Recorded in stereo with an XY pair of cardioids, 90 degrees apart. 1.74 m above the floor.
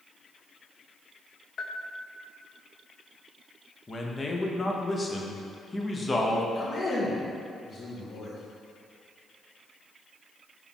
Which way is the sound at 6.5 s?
60° left.